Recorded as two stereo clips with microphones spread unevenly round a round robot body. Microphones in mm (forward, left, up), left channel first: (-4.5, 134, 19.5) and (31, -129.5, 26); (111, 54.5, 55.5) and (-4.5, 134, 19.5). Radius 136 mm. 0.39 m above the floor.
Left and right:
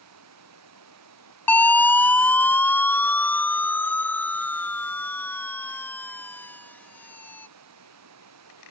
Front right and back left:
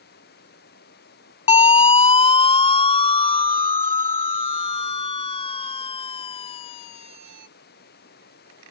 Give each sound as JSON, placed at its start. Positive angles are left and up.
{"t": 0.0, "sound": "running water", "azimuth_deg": -55}
{"t": 1.5, "sound": "a siren", "azimuth_deg": 15}